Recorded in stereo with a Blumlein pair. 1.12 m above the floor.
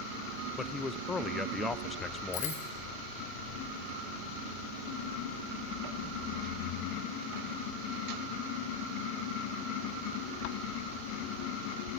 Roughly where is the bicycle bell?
Ahead left.